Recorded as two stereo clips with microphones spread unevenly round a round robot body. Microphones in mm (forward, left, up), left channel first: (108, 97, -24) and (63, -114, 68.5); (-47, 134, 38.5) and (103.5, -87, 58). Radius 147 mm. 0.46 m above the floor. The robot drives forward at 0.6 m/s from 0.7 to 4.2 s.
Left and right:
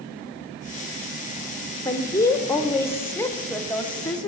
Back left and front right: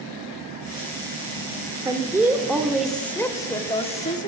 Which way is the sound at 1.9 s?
25° left.